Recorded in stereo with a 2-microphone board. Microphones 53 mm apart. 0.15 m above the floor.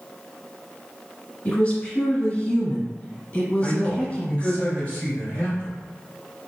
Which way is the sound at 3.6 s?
20° left (ahead or behind).